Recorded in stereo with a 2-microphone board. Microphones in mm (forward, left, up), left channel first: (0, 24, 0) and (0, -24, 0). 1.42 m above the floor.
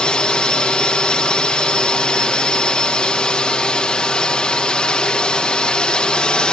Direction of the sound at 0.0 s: 20° left (ahead or behind).